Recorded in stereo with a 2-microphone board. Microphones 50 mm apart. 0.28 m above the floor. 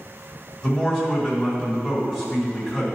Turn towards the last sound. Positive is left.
turn(degrees=-10)  # may be behind; listen again after turning